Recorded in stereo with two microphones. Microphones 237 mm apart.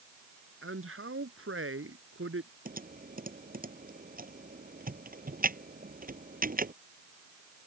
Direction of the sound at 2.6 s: 40° right (ahead or behind).